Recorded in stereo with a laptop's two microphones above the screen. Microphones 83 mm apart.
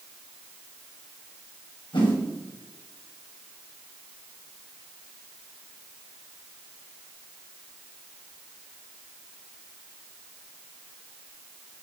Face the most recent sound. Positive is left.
turn(degrees=75)  # may be behind; listen again after turning